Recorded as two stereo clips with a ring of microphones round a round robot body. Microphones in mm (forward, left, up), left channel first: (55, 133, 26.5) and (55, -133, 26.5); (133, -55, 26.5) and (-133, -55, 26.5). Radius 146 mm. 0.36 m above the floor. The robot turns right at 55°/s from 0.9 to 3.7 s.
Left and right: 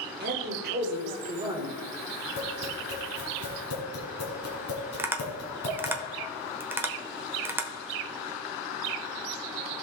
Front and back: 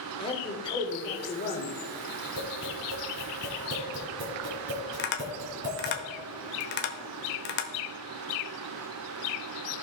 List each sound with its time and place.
0.2 s a man speaking: 60° right, 1.7 m; by 1.7 s 15° right, 1.7 m
2.4 s tapping: 55° left, 2.5 m; by 6.0 s 130° left, 2.5 m
5.0 s tapping: 10° right, 1.0 m